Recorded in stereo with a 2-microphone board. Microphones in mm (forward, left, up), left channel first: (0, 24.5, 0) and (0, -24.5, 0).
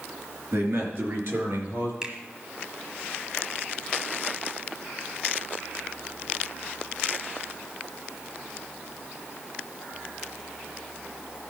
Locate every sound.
0.5 s a man speaking: 65° right (ahead or behind), 4 m; by 1.9 s 50° right (ahead or behind), 4.5 m
2.0 s a finger snap: 20° right (ahead or behind), 1.7 m